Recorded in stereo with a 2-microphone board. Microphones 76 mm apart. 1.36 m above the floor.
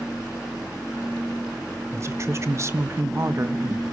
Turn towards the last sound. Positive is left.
turn(degrees=-40)  # may be behind; listen again after turning